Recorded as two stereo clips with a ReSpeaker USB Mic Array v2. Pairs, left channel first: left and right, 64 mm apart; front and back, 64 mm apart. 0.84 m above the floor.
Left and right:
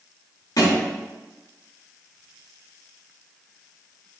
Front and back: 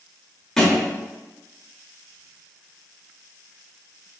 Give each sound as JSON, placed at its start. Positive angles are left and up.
{"t": 0.6, "sound": "a thud", "azimuth_deg": 85, "distance_m": 0.8}